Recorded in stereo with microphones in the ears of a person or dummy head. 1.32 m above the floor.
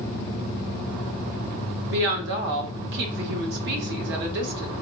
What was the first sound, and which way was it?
A woman speaking, 60° right (ahead or behind).